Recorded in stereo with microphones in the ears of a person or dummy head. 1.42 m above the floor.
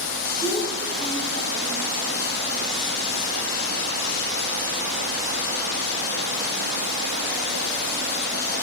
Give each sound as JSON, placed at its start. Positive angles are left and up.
{"t": 0.4, "sound": "a child speaking", "side_deg": -40, "distance_m": 5.0}